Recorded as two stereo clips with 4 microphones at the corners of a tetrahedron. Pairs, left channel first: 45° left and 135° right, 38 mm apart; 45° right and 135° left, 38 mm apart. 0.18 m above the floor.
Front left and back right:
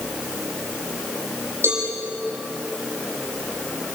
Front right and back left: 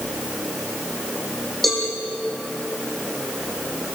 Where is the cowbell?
130° right, 8.5 m.